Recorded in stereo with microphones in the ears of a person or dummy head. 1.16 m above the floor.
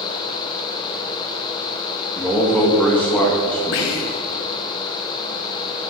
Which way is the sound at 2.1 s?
10° left (ahead or behind).